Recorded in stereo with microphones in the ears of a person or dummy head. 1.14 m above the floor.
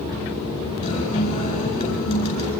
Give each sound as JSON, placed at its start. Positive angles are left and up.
{"t": 0.8, "sound": "a guitar", "side_deg": 45, "distance_m": 9.0}